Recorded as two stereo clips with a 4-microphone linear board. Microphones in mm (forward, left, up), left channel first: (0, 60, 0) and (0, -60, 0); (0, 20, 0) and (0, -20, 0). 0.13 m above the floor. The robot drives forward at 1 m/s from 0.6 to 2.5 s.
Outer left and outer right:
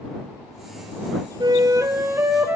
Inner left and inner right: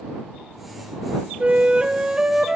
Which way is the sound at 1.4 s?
35° right (ahead or behind).